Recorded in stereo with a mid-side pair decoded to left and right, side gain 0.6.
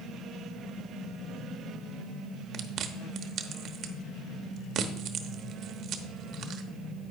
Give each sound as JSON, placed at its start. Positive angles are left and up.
{"t": 2.5, "sound": "chewing", "azimuth_deg": -55, "distance_m": 1.0}